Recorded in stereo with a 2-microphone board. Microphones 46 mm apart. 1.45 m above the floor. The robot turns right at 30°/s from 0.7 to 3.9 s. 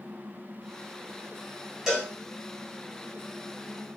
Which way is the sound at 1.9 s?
10° right (ahead or behind).